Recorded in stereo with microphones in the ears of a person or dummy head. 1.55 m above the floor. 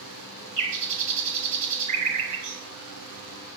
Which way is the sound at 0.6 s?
40° right (ahead or behind).